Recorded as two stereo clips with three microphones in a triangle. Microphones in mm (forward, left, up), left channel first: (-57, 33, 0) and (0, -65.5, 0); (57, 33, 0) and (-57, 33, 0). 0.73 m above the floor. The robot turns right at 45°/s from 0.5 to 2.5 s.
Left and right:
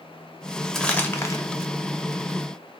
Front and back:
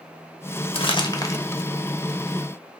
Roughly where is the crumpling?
Ahead left.